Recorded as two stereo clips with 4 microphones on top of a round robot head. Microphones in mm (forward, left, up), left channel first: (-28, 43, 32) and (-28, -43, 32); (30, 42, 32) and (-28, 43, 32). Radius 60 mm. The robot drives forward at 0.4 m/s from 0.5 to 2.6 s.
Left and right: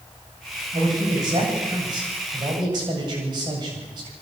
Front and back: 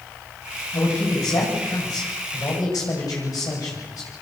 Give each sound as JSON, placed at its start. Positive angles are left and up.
{"t": 0.7, "sound": "a man speaking", "azimuth_deg": -40, "distance_m": 9.0}